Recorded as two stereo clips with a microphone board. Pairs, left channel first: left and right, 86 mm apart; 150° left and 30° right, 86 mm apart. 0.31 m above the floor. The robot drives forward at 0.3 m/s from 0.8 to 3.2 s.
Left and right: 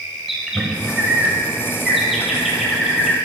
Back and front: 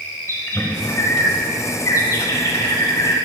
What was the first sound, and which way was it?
A bird, 175° right.